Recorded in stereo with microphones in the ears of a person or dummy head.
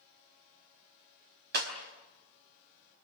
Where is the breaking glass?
60° right (ahead or behind), 4 m.